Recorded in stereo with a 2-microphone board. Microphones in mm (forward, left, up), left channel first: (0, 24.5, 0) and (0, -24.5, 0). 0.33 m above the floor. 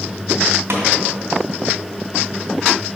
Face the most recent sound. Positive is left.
turn(degrees=-60)  # may be behind; listen again after turning